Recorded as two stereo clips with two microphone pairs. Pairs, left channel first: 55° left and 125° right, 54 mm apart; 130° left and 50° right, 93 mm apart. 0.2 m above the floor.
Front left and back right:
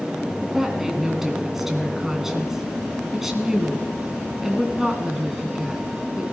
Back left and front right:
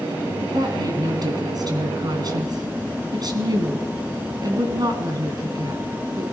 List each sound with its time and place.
0.4 s a woman speaking: 45° right, 2.0 m